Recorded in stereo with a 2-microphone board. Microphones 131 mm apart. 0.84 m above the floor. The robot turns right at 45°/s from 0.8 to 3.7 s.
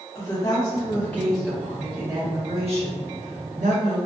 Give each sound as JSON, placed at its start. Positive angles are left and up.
{"t": 0.1, "sound": "a woman speaking", "azimuth_deg": 150, "distance_m": 1.2}